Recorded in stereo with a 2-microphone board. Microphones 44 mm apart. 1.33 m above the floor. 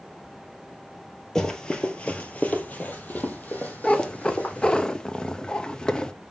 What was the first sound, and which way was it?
Running footsteps, 10° left (ahead or behind).